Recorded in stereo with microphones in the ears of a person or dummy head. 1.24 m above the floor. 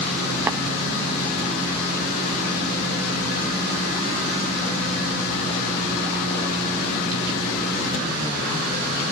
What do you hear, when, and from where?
0.5 s tapping: 15° right (ahead or behind), 0.8 m